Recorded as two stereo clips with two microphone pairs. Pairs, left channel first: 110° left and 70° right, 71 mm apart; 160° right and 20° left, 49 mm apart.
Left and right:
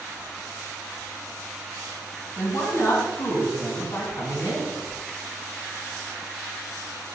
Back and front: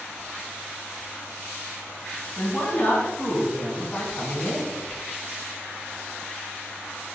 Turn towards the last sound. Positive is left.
turn(degrees=145)